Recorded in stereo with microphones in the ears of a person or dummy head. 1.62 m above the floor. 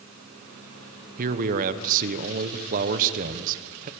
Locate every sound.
1.2 s a man speaking: 45° right (ahead or behind), 1.2 m